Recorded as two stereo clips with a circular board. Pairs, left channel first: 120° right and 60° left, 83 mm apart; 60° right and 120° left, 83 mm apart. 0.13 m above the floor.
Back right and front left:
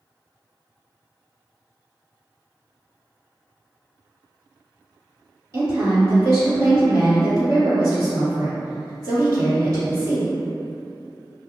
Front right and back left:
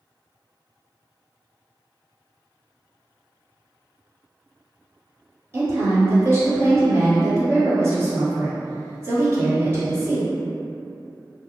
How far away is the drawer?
I don't hear a drawer.